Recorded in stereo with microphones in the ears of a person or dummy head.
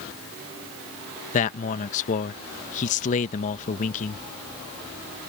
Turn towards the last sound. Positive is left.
turn(degrees=45)  # may be behind; listen again after turning